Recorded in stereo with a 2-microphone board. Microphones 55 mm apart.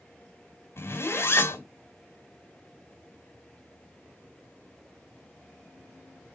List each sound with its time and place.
0.8 s a zipper: 50° left (ahead or behind), 2.5 m